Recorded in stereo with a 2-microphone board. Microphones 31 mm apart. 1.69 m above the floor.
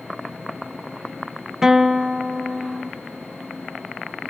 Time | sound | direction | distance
1.6 | a guitar | 10° right (ahead or behind) | 0.5 m